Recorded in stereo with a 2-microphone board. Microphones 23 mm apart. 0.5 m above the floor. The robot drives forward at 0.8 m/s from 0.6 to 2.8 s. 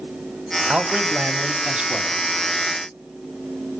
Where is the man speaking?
65° right (ahead or behind), 2.5 m; by 2.2 s 45° right (ahead or behind), 3 m.